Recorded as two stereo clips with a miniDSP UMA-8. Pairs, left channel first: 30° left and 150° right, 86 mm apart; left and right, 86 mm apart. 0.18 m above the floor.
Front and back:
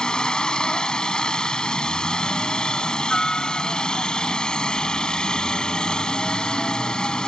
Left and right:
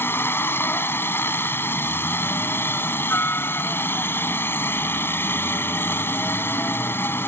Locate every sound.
0.0 s a helicopter: 100° left